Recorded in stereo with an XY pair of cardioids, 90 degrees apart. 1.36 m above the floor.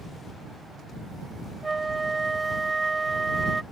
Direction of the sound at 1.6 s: 20° right.